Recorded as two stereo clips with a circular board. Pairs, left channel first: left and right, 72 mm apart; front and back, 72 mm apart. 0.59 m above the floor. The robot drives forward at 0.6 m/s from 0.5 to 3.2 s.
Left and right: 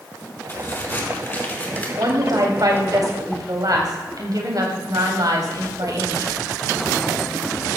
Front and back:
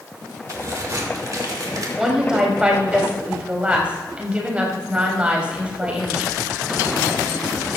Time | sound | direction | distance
0.5 | a crack | 145° left | 2 m
2.0 | a woman speaking | 95° right | 4 m